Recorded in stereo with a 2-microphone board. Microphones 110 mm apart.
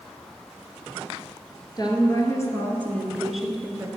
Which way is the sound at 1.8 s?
40° left (ahead or behind).